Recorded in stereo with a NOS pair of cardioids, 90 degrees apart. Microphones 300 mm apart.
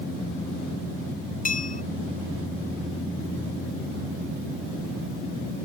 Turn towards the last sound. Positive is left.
turn(degrees=25)